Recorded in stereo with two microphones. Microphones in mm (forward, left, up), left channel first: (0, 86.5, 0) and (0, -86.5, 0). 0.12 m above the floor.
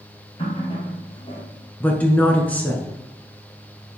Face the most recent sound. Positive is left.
turn(degrees=10)  # may be behind; listen again after turning